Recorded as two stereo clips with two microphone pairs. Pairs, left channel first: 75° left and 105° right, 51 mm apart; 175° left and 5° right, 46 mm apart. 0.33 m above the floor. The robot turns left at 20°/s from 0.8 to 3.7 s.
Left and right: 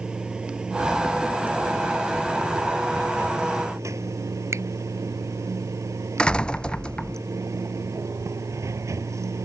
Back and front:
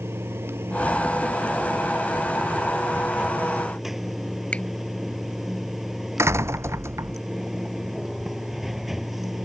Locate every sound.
0.0 s running water: 30° right; by 9.4 s 90° right
4.5 s a finger snap: 125° right
6.2 s a door slam: 5° left